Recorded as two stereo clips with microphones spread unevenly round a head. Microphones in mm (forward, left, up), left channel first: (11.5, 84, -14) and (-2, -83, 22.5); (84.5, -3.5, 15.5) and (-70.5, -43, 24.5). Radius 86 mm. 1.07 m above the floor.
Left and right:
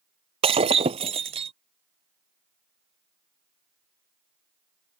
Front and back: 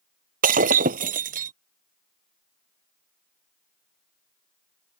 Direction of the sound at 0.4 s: 140° right.